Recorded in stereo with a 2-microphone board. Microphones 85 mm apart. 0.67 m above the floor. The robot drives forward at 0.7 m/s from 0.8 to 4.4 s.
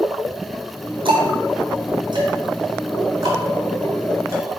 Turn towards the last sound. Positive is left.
turn(degrees=-35)  # may be behind; listen again after turning